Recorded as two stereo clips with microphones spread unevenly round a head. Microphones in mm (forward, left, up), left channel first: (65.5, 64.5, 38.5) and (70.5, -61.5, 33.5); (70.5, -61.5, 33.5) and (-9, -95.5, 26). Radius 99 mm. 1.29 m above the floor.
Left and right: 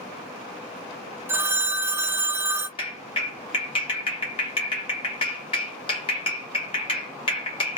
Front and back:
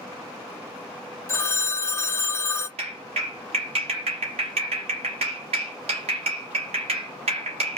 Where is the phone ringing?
20° right, 0.5 m.